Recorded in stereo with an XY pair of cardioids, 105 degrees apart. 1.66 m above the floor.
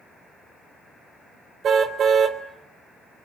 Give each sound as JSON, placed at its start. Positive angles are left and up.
{"t": 1.6, "sound": "a car horn", "azimuth_deg": -55, "distance_m": 3.0}